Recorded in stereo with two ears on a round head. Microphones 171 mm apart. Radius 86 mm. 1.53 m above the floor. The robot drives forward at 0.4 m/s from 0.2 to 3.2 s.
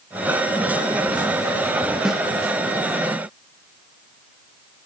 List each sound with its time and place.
2.0 s a snare drum: 5° right (ahead or behind), 0.6 m